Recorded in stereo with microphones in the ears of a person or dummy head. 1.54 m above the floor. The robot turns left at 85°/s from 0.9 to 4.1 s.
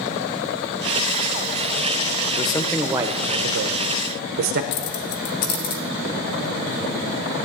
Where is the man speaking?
40° left, 0.7 m; by 4.6 s 110° right, 0.7 m.